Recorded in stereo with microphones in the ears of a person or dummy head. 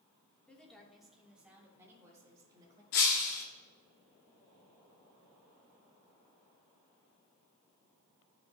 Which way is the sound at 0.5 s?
10° left (ahead or behind).